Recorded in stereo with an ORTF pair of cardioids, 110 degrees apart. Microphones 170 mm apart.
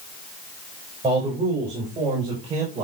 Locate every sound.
1.0 s a man speaking: 35° right, 6 m; by 2.9 s 45° right, 5.5 m